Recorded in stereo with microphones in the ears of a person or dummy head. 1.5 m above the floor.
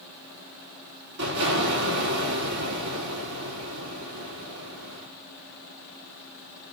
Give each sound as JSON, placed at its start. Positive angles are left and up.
{"t": 1.2, "sound": "an explosion", "side_deg": -65, "distance_m": 3.5}